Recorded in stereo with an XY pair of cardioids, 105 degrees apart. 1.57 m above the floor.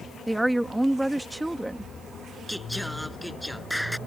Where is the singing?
Straight ahead.